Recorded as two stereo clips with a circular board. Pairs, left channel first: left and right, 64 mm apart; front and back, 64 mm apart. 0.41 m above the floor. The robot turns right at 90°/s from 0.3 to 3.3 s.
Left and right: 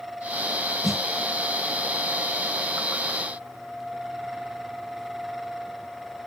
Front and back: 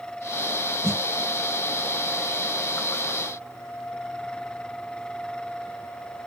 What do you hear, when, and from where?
0.8 s a snare drum: 175° left; by 1.0 s 165° right